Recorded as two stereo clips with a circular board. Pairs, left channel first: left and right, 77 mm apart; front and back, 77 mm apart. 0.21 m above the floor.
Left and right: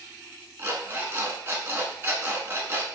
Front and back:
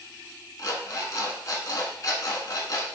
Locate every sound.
0.6 s an alarm clock: 35° right, 0.9 m